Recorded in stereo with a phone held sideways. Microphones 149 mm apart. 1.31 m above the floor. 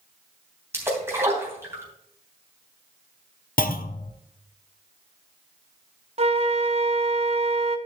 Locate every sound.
0.7 s a splash: 15° right (ahead or behind), 3 m
3.6 s a clunk: 70° left (ahead or behind), 0.7 m
6.2 s a flute: 45° right (ahead or behind), 0.8 m